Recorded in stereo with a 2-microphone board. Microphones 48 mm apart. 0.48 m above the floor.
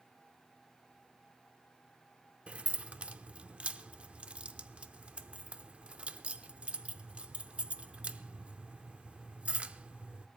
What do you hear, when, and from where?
2.5 s keys jangling: 30° right (ahead or behind), 0.6 m